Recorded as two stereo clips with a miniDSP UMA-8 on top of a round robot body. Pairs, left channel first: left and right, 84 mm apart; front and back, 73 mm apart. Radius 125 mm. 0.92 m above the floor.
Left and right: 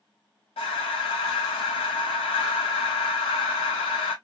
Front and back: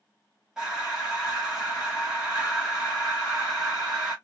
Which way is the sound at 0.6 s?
95° left.